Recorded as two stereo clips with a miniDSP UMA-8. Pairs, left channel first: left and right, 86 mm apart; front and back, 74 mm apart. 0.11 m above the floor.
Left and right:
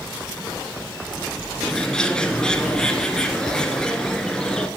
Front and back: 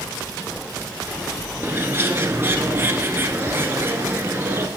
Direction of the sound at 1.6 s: 165° left.